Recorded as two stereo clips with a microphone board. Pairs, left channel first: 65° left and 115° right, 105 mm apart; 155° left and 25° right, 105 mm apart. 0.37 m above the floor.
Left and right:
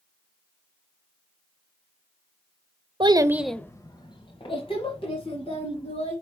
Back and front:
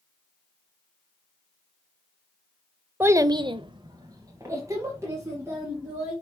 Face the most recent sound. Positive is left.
turn(degrees=45)